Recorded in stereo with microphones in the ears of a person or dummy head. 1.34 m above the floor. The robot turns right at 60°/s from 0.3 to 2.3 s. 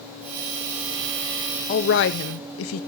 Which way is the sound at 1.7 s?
50° left.